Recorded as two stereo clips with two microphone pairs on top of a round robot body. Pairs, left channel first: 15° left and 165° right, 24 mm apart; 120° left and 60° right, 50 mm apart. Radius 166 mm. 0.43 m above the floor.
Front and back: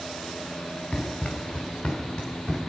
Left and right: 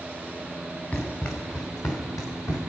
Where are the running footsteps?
70° left, 3 m; by 2.6 s 100° left, 3.5 m.